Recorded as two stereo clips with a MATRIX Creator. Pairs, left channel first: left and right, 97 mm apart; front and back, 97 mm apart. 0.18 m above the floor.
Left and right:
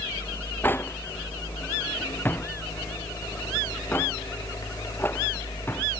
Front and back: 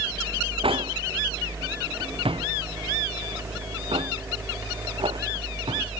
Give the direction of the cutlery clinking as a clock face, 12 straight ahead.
7 o'clock.